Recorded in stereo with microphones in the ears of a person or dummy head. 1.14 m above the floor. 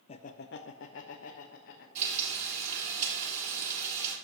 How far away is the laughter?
About 0.6 m.